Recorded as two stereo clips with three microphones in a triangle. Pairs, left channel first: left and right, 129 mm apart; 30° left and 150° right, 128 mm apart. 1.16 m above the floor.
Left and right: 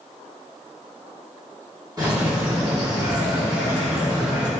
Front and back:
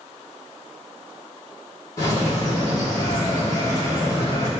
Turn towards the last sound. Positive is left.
turn(degrees=-30)